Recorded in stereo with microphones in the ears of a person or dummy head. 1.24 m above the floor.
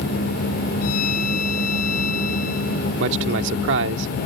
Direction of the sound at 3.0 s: 75° right (ahead or behind).